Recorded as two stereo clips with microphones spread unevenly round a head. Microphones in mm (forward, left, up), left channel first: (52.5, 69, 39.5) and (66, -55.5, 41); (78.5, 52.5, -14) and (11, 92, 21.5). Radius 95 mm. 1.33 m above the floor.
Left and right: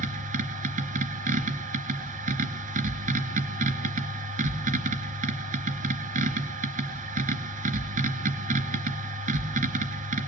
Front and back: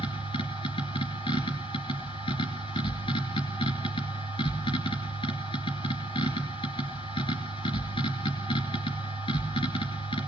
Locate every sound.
0.0 s a machine running: 75° right, 3 m